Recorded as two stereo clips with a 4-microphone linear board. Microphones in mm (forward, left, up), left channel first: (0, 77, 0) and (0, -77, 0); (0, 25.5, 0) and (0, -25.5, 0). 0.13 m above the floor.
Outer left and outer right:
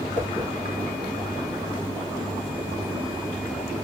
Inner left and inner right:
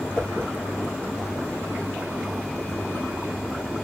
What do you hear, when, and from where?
0.1 s a whoosh: 15° left (ahead or behind), 1.5 m